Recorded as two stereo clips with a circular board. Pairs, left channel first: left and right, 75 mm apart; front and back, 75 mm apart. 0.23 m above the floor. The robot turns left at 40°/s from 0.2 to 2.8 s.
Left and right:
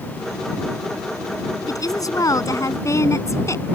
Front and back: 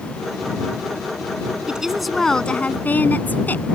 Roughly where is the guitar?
No guitar in this recording.